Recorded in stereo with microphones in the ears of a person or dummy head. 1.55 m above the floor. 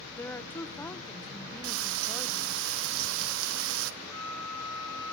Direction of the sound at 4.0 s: 20° left (ahead or behind).